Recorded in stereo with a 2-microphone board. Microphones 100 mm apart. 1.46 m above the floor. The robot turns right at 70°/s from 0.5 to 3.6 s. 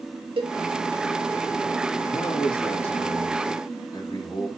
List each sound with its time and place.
0.4 s a cowbell: 60° right (ahead or behind), 1.9 m
2.1 s a man speaking: 25° left, 3 m; by 4.5 s 135° left, 3 m